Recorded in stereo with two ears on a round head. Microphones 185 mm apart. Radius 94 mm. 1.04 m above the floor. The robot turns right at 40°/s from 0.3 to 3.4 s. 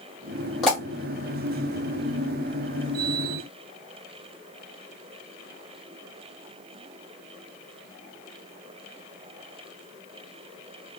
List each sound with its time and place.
0.6 s a pop: centre (ahead or behind), 1.9 m; by 0.8 s 5° left (ahead or behind), 1.9 m